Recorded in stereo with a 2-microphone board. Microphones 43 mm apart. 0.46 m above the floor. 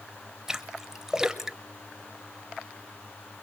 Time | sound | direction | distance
0.5 | a splash | 10° right (ahead or behind) | 0.8 m